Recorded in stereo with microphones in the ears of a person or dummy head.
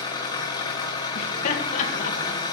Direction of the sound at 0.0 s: 25° left (ahead or behind).